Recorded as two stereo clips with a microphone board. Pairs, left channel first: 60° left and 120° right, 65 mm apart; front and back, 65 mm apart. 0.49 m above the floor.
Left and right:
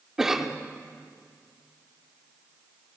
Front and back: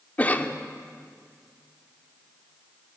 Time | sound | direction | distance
0.2 | a cough | 45° right | 0.8 m